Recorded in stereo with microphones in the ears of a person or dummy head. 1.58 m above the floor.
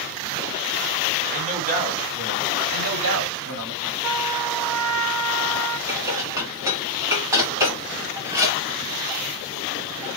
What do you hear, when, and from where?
1.3 s a man speaking: 45° right (ahead or behind), 2 m
2.7 s a man speaking: 75° right (ahead or behind), 1.6 m
4.0 s a trumpet: 10° right (ahead or behind), 1.7 m
5.9 s dishes clattering: 15° right (ahead or behind), 1.8 m